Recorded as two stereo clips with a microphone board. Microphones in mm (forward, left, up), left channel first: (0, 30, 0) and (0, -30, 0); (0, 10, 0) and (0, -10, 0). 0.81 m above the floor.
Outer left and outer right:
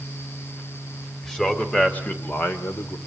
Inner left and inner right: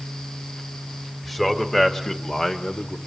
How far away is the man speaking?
About 3 m.